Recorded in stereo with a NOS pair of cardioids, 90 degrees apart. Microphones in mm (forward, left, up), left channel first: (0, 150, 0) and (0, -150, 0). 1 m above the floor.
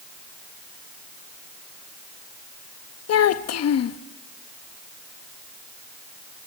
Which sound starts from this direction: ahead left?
A child speaking, at 3.1 s.